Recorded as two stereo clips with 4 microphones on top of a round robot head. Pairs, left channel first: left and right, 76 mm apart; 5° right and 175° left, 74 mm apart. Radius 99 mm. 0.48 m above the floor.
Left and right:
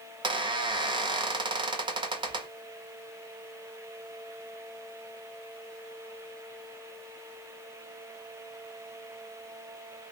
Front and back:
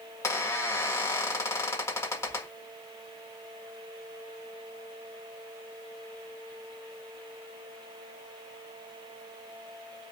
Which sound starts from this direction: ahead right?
A squeak, at 0.2 s.